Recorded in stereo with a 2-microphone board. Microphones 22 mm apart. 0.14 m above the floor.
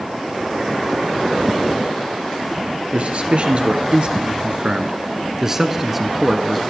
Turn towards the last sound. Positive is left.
turn(degrees=10)  # may be behind; listen again after turning